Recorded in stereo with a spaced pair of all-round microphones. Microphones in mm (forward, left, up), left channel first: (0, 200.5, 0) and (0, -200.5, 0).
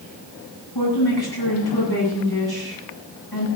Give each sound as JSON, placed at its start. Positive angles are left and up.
{"t": 0.8, "sound": "a woman speaking", "side_deg": 75, "distance_m": 10.0}